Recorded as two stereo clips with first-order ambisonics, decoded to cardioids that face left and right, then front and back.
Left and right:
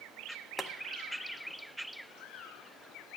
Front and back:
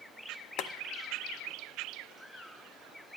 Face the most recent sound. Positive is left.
turn(degrees=10)